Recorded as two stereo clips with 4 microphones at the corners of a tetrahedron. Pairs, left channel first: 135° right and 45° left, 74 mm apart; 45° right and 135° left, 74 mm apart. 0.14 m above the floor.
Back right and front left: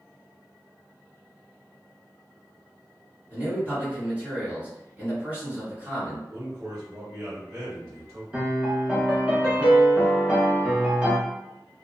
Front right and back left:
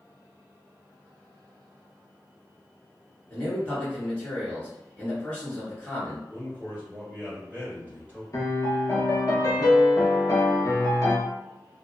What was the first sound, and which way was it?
A man speaking, straight ahead.